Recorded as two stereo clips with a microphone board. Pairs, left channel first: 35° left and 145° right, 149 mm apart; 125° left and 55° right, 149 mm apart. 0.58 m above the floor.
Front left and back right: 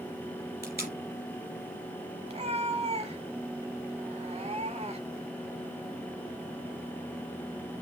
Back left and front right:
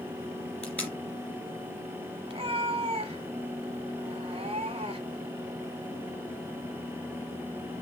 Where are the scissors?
I don't hear scissors.